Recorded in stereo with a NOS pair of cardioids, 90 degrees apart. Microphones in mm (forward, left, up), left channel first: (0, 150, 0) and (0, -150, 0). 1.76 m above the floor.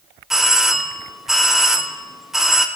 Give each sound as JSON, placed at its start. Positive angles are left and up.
{"t": 0.3, "sound": "a doorbell", "azimuth_deg": 0, "distance_m": 1.2}